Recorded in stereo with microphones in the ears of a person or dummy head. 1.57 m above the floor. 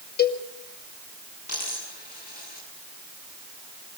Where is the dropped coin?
50° left (ahead or behind), 7 m.